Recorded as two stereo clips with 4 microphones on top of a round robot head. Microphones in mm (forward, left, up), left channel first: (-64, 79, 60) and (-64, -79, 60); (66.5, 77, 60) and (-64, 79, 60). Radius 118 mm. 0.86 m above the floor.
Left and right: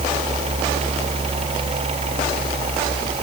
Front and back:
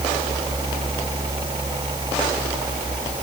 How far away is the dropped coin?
I don't hear a dropped coin.